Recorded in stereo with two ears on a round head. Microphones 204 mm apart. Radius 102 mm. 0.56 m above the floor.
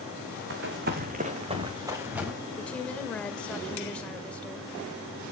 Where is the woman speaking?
5° left (ahead or behind), 1.7 m.